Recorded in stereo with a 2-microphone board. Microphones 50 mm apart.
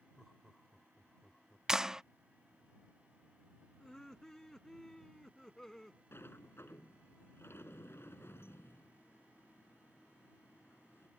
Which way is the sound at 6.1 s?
50° left (ahead or behind).